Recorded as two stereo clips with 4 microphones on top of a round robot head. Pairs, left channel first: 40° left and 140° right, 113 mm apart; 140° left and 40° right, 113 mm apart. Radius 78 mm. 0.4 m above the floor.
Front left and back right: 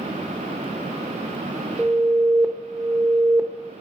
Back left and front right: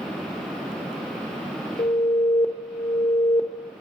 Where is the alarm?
145° left, 1.1 m.